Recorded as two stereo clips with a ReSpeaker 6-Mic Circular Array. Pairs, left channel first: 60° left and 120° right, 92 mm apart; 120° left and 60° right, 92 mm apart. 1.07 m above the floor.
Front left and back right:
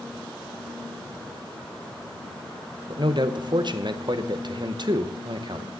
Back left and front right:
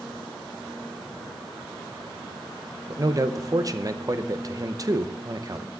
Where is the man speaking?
100° right, 0.7 m.